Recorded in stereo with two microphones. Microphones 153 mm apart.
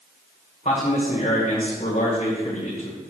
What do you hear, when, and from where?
0.7 s a man speaking: 50° left (ahead or behind), 1.9 m